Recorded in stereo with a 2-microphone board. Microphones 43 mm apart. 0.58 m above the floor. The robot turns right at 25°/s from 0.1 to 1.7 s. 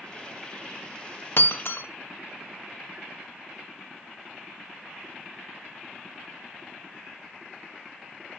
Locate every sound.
1.4 s breaking glass: 65° left (ahead or behind), 0.5 m; by 1.9 s 60° left (ahead or behind), 0.5 m